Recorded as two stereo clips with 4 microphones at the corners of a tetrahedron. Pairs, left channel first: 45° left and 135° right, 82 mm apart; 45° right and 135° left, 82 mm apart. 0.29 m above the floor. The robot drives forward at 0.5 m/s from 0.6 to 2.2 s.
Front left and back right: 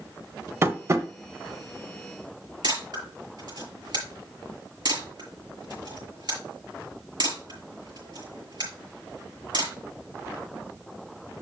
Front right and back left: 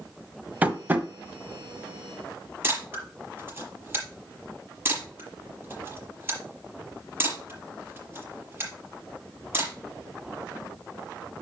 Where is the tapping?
170° right, 1.1 m.